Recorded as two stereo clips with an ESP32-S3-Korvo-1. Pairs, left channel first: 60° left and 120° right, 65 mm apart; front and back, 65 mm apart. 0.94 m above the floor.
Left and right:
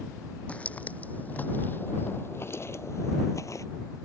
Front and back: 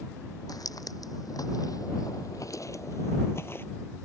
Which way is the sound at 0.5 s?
10° right.